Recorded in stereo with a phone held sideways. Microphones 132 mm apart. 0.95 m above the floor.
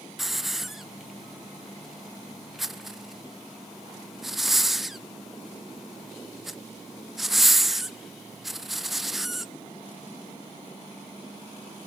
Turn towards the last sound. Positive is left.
turn(degrees=0)  # may be behind; listen again after turning